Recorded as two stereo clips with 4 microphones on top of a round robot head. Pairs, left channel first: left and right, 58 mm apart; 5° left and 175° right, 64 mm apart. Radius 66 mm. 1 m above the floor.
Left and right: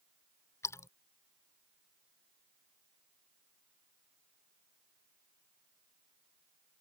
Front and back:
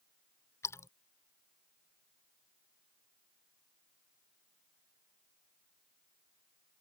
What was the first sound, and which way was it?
A splash, 50° left.